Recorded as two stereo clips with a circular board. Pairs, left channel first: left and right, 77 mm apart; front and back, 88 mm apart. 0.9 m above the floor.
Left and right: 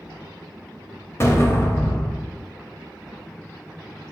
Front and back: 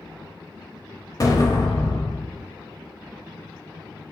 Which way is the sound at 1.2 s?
40° left.